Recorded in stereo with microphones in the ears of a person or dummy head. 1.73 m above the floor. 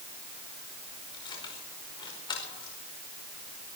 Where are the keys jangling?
20° left (ahead or behind), 5 m.